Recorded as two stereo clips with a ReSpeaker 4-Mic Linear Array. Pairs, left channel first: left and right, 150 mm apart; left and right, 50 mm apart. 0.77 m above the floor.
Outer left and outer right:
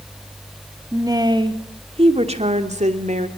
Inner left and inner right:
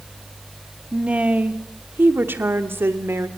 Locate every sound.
0.9 s a woman speaking: 20° right (ahead or behind), 1.9 m; by 3.3 s 55° right (ahead or behind), 3 m